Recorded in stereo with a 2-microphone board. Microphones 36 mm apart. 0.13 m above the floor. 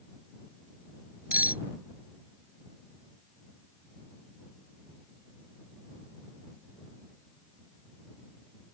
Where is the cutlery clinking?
50° right (ahead or behind).